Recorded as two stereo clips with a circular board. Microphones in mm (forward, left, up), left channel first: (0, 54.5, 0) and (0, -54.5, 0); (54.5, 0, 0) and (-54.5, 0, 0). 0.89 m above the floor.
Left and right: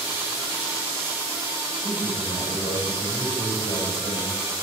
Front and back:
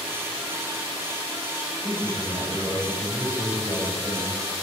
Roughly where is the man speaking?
Left.